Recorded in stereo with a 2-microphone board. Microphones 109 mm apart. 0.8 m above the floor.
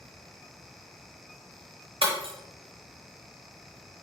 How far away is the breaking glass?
About 1.0 m.